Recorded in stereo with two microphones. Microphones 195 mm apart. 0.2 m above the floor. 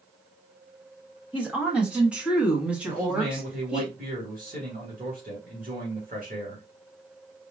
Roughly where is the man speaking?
Right.